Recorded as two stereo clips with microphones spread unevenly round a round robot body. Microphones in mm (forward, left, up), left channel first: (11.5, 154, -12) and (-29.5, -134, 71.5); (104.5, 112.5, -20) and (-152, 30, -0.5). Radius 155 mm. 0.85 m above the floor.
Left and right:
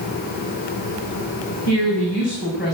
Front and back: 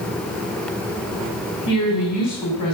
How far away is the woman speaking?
About 6.5 m.